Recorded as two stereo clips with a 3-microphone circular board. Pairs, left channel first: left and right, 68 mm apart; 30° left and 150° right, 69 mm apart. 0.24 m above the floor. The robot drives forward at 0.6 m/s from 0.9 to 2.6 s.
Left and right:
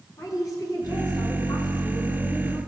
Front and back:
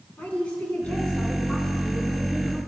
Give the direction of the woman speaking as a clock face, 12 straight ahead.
9 o'clock.